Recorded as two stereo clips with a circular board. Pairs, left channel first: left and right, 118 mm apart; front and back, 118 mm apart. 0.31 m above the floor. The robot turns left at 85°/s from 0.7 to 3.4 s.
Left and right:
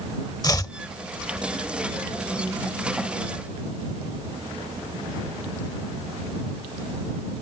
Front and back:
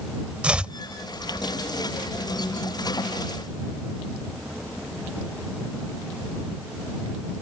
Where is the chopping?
105° left; by 0.8 s 100° left.